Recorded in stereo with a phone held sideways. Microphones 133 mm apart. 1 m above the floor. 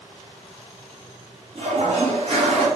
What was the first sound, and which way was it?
A toilet flushing, 50° right (ahead or behind).